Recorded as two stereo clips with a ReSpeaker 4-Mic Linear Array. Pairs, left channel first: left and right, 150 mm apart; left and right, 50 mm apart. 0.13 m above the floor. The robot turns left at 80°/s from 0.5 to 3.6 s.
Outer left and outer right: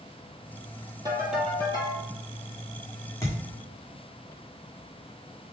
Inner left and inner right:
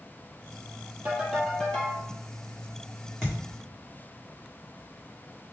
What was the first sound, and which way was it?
A ringtone, 150° right.